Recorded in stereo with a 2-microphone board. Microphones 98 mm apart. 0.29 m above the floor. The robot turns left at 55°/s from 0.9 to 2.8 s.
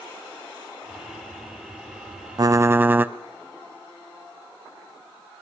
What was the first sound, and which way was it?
Typing on a keyboard, 40° right (ahead or behind).